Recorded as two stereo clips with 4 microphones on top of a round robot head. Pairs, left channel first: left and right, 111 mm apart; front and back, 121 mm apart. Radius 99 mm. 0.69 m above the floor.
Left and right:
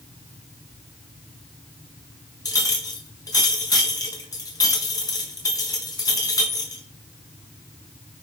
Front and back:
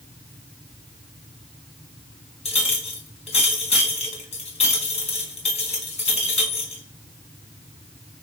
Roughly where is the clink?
Ahead left.